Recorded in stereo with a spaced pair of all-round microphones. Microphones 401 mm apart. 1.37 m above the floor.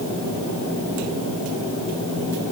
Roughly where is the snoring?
No snoring in this recording.